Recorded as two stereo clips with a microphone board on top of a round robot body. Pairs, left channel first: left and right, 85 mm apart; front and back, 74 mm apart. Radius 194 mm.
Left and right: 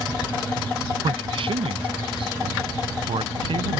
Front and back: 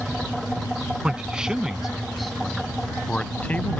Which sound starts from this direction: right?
A man speaking, at 1.0 s.